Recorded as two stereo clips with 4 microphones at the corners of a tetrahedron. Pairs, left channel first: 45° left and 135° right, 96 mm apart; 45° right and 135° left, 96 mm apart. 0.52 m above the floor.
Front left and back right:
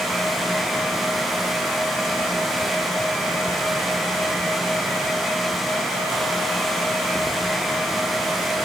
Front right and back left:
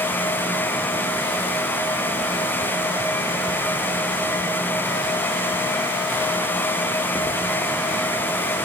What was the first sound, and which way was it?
Only background noise.